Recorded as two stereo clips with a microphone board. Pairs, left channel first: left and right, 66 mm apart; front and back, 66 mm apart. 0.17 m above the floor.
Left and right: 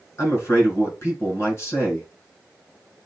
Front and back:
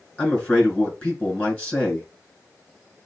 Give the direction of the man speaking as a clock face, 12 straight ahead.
10 o'clock.